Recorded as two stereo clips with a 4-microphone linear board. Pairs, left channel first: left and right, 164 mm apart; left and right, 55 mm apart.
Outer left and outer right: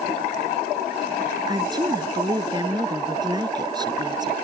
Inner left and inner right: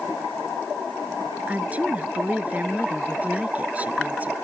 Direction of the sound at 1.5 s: 25° right (ahead or behind).